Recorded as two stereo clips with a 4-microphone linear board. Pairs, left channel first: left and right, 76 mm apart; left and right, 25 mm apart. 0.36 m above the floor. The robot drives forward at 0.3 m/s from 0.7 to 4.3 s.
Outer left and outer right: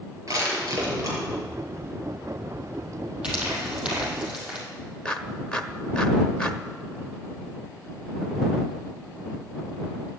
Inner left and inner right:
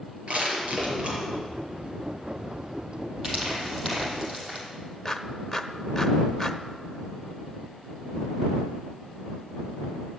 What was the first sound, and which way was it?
Crushing, 50° right (ahead or behind).